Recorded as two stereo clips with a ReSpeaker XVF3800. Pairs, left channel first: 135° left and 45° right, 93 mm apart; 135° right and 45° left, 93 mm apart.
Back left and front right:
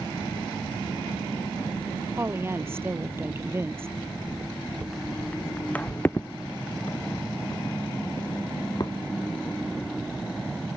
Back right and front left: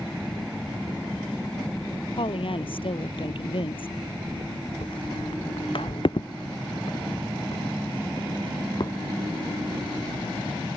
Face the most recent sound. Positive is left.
turn(degrees=-175)